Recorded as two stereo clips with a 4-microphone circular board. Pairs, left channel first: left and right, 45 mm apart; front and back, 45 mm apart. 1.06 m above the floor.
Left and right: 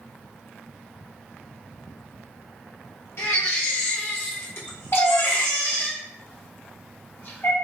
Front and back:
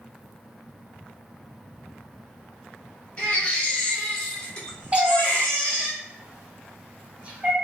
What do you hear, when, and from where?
3.2 s a baby crying: 65° left, 1.2 m
4.9 s a cat meowing: 120° left, 0.7 m